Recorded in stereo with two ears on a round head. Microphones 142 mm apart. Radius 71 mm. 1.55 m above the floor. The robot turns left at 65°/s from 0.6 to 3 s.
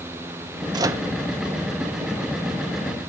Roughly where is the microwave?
Right.